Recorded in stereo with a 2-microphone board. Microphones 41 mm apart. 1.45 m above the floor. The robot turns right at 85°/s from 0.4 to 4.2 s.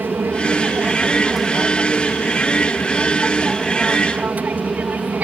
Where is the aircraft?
90° right; by 5.2 s 125° right.